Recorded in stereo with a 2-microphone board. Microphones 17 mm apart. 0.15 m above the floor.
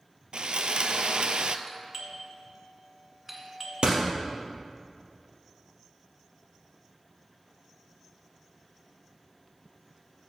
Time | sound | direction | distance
0.3 | sawing | 70° right (ahead or behind) | 0.6 m
1.7 | a doorbell | 15° right (ahead or behind) | 1.6 m
3.8 | a door slam | 65° right (ahead or behind) | 2.5 m